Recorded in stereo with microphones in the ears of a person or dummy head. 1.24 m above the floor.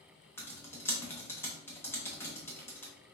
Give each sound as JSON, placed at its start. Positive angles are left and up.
{"t": 0.4, "sound": "typing on a keyboard", "side_deg": 10, "distance_m": 0.8}